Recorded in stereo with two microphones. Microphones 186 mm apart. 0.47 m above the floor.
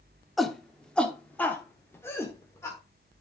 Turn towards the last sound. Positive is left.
turn(degrees=15)  # may be behind; listen again after turning